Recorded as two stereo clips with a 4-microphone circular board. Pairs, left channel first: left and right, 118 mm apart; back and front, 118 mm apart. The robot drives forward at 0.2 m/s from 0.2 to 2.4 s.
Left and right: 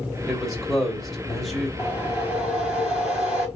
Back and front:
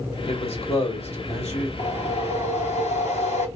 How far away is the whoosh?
About 3 m.